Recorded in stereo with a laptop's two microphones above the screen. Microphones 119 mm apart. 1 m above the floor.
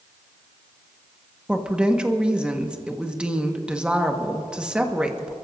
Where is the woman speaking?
10° right (ahead or behind), 1.3 m.